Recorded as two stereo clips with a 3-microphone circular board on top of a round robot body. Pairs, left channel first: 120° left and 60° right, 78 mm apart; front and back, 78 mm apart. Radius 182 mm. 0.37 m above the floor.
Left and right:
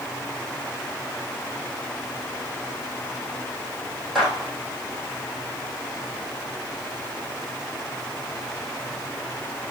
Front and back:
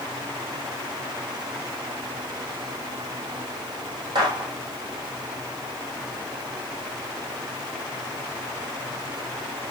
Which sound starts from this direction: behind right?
A gunshot, at 4.2 s.